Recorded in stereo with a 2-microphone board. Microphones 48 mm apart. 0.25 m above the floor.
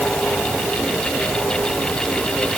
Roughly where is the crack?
I don't hear a crack.